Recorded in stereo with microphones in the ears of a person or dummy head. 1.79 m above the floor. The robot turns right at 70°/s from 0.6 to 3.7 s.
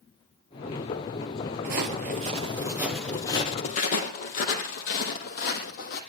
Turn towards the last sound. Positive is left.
turn(degrees=55)  # may be behind; listen again after turning